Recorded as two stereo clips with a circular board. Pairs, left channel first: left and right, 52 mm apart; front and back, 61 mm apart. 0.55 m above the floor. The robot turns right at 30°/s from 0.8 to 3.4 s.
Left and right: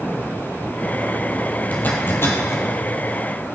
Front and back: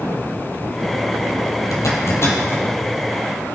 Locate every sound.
1.7 s a zipper: 30° left, 2.5 m; by 2.6 s 55° left, 2.5 m